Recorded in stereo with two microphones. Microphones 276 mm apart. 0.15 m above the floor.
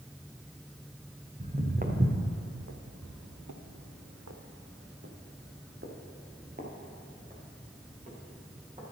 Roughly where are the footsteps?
Right.